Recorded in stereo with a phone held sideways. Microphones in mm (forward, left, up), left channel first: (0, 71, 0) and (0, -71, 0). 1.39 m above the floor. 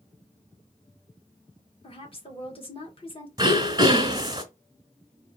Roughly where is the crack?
I don't hear a crack.